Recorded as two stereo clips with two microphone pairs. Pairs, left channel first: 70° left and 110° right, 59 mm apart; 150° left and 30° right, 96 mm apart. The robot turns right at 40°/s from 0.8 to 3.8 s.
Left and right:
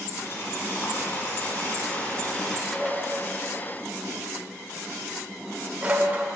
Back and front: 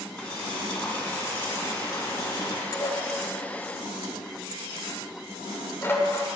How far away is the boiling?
About 1.5 m.